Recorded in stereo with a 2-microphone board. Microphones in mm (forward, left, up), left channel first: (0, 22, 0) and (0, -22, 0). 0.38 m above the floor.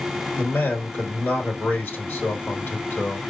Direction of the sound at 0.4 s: 50° left (ahead or behind).